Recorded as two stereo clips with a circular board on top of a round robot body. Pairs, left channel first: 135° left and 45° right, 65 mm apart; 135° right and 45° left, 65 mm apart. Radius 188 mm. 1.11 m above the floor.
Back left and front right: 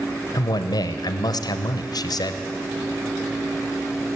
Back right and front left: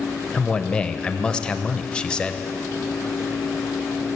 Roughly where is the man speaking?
Behind left.